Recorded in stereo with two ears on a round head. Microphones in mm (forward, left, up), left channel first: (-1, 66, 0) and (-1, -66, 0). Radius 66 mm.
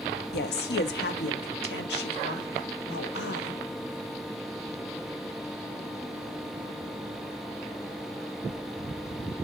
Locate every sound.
0.3 s a woman speaking: 75° left (ahead or behind), 1.1 m; by 3.6 s 85° left, 3 m